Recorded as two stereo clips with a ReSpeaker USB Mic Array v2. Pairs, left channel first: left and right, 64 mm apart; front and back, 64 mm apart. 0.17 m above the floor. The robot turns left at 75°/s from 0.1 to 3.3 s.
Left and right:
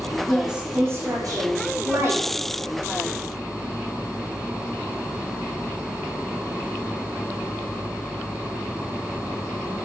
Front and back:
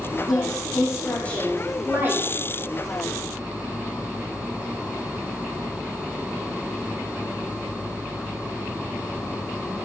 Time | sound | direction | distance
0.3 | a woman speaking | 5° left | 7.5 m